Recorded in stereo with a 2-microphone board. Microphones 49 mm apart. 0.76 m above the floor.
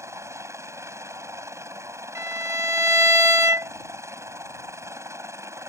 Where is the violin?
80° right.